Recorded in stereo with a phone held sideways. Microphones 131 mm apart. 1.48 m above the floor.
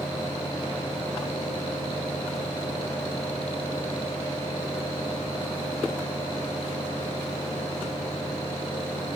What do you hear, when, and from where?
0.0 s a fan: 45° left (ahead or behind), 2.5 m